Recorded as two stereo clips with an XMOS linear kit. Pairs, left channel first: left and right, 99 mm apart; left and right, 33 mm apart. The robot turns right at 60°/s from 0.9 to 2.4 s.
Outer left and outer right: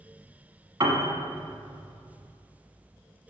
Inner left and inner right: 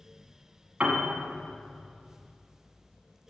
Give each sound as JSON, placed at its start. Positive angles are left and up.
{"t": 0.8, "sound": "a piano", "side_deg": -40, "distance_m": 1.1}